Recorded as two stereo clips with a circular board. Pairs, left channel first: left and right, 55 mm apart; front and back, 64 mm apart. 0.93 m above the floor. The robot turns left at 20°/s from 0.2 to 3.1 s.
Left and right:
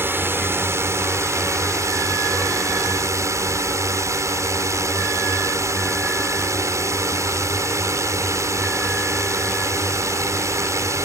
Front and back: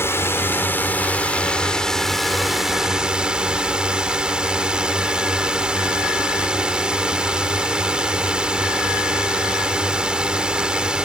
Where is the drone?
45° right; by 11.1 s 105° right.